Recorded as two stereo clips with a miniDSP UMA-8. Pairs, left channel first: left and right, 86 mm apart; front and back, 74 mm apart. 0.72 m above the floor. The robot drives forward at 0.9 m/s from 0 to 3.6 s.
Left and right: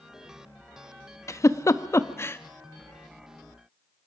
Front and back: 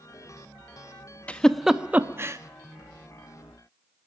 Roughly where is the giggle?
Ahead left.